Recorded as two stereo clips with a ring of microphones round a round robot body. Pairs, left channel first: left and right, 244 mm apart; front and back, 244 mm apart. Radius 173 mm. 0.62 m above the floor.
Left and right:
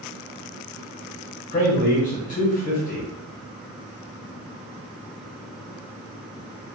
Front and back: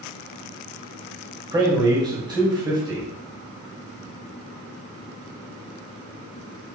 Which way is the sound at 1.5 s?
120° left.